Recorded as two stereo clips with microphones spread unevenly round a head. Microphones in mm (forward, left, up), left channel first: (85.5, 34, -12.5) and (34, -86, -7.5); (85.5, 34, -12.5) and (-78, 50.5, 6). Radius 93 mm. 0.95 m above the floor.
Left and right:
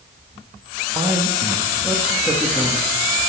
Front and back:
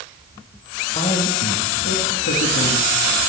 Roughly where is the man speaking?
Ahead right.